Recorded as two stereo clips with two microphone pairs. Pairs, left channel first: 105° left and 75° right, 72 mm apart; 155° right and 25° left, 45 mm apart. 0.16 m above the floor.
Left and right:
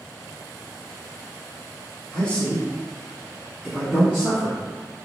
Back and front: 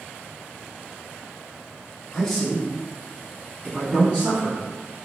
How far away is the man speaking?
About 1.1 m.